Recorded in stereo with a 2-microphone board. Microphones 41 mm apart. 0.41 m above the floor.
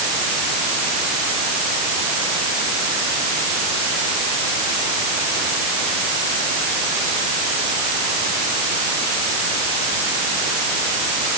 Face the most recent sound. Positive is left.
No sound to turn to.